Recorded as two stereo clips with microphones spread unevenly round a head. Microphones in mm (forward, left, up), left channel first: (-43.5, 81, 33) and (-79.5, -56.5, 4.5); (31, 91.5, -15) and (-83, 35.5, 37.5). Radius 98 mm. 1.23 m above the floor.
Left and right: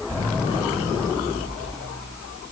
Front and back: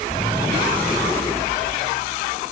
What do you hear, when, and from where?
Only background noise.